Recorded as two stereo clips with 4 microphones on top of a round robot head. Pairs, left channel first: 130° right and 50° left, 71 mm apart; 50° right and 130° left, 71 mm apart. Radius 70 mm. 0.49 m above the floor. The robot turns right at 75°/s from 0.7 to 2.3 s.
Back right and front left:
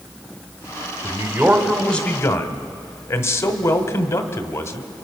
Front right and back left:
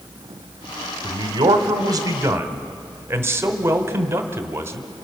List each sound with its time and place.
1.0 s a man speaking: 90° left, 2.0 m; by 4.9 s 175° right, 2.0 m